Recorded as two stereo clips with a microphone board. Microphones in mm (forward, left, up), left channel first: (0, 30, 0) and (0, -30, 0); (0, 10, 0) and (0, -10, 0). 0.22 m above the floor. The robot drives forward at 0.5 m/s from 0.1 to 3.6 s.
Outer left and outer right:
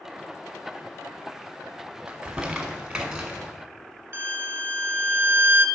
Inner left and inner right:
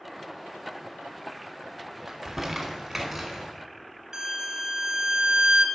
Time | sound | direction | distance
2.1 | crumpling | 20° right (ahead or behind) | 0.9 m
4.1 | a violin | 40° right (ahead or behind) | 0.6 m